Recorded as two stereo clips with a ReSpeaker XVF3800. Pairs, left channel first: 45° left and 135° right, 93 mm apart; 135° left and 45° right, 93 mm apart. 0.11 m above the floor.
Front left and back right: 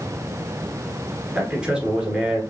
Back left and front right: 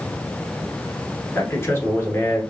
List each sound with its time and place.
1.4 s a man speaking: 155° left, 1.4 m